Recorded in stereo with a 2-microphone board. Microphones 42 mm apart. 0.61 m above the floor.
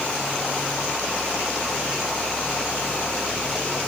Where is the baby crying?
I don't hear a baby crying.